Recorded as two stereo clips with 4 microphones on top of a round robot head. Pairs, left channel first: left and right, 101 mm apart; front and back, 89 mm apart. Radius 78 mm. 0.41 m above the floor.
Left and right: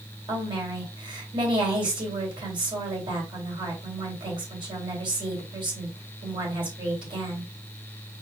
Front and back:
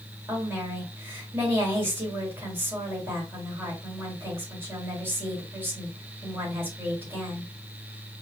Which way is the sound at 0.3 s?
115° right.